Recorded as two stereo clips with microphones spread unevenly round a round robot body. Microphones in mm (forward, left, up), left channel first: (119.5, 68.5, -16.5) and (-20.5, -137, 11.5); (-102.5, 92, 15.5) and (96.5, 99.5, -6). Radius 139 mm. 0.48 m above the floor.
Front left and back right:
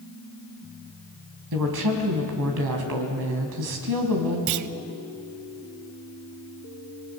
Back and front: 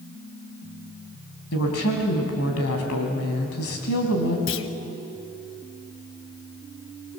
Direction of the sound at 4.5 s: 140° right.